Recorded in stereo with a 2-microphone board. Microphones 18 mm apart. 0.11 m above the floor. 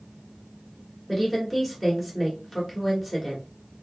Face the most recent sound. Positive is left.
turn(degrees=0)  # may be behind; listen again after turning